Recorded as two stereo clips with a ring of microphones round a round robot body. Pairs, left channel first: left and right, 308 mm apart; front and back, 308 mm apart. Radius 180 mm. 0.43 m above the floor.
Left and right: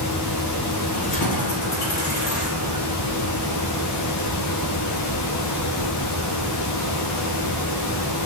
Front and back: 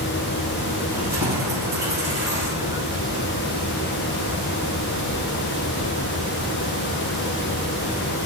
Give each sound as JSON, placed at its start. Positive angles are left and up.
{"t": 0.9, "sound": "keys jangling", "azimuth_deg": 95, "distance_m": 3.5}